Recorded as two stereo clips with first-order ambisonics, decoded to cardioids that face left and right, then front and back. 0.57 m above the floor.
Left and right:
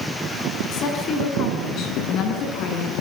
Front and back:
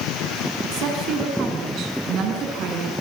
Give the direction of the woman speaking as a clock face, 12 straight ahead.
7 o'clock.